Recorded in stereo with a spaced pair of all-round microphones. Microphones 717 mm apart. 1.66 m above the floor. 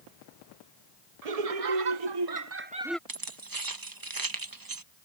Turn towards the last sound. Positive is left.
turn(degrees=-30)  # may be behind; listen again after turning